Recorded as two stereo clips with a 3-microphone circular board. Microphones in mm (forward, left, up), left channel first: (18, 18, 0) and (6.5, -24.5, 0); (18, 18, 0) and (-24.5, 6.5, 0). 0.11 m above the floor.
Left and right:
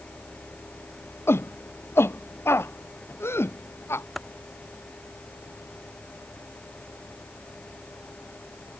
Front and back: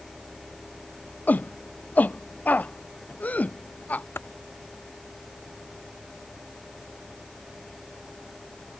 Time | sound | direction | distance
1.3 | a shout | 65° left | ?
4.2 | typing on a keyboard | 15° right | ?